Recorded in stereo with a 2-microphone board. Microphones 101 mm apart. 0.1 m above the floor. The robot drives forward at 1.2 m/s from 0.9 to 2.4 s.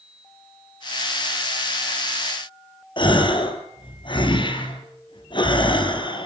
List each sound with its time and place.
3.0 s a gasp: 50° left (ahead or behind), 2.5 m